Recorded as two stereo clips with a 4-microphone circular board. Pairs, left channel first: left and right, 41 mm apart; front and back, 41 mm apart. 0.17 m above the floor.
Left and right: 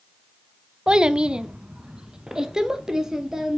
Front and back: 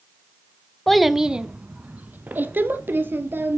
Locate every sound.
0.9 s a child speaking: 80° right, 0.6 m; by 3.6 s 165° right, 1.8 m